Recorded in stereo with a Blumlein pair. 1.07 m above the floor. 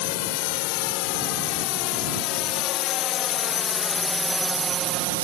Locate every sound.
0.0 s a drone: 45° left; by 5.2 s 55° right